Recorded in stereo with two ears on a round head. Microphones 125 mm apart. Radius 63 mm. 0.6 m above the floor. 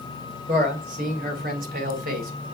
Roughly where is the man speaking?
Right.